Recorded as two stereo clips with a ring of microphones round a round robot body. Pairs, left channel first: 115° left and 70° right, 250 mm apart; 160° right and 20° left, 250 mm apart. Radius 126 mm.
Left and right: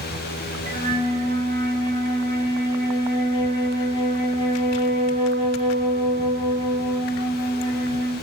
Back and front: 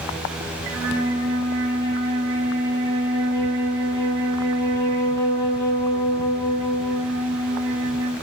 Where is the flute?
5° right, 3 m.